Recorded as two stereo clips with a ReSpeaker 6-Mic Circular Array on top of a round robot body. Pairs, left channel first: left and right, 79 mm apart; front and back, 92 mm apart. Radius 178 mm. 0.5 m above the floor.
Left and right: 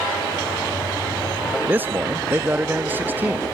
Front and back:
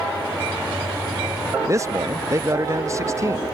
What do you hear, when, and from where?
1.7 s a man speaking: 145° right